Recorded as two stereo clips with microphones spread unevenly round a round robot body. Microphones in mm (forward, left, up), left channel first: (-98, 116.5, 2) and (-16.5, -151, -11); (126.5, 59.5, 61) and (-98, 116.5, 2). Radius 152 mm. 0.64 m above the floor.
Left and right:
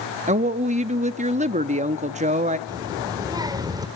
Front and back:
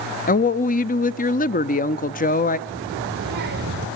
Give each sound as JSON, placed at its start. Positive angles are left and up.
{"t": 0.3, "sound": "a woman speaking", "azimuth_deg": -60, "distance_m": 0.7}
{"t": 2.7, "sound": "a child speaking", "azimuth_deg": -150, "distance_m": 1.9}